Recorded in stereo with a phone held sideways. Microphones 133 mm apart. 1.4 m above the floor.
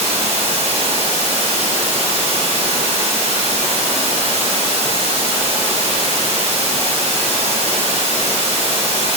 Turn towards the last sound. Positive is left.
turn(degrees=-50)  # may be behind; listen again after turning